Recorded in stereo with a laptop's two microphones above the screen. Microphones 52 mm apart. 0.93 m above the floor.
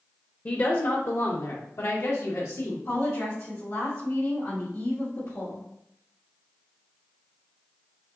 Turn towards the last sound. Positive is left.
turn(degrees=60)  # may be behind; listen again after turning